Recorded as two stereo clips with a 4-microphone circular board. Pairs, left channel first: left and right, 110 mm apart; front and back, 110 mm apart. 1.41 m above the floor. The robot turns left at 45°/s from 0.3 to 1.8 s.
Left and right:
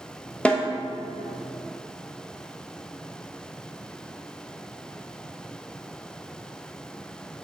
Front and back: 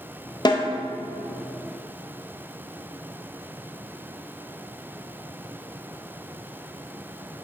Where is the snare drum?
15° left, 0.7 m; by 0.7 s 5° left, 0.7 m.